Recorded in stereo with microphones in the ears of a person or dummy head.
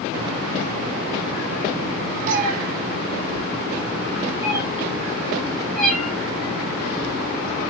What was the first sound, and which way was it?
A cat meowing, 50° right (ahead or behind).